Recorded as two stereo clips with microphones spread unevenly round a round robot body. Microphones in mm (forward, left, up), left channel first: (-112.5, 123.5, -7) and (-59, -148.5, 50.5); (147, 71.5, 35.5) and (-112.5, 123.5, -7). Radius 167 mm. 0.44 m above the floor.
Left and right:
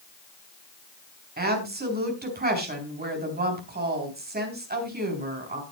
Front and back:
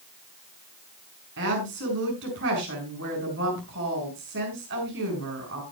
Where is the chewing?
I don't hear chewing.